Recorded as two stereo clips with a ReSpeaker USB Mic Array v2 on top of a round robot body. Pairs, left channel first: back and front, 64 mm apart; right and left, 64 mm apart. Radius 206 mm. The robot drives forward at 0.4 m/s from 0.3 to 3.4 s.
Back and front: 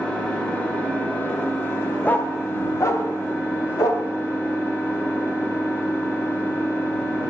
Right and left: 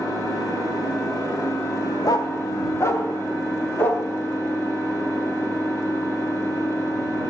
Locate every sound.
0.0 s an engine running: 105° right, 2.5 m; by 7.3 s 130° right, 3 m
2.0 s a dog barking: 110° right, 0.5 m; by 4.0 s 145° right, 0.9 m